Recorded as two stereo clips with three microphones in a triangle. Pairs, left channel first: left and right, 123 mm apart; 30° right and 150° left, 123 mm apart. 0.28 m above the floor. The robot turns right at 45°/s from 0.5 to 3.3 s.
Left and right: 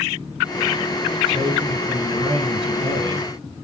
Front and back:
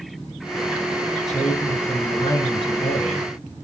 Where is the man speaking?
125° right, 2.5 m; by 3.3 s 35° right, 2.5 m.